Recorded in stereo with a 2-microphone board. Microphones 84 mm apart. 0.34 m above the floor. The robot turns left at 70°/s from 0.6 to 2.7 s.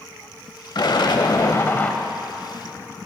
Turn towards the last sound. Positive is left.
turn(degrees=-40)